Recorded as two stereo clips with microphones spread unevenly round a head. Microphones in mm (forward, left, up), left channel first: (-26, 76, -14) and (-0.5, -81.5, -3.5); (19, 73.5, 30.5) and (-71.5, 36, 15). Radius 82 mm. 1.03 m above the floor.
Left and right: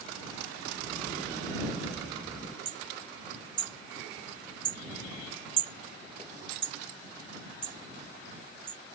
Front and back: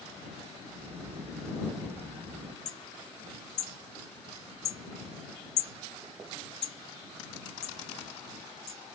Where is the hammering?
20° right.